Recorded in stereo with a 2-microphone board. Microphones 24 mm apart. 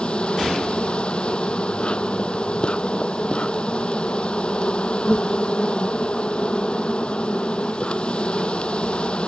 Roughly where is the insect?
Left.